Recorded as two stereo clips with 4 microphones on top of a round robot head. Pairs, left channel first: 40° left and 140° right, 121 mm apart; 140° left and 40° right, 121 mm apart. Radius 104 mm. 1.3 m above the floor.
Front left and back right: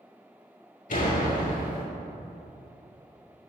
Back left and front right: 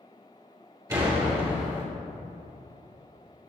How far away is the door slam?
About 3 m.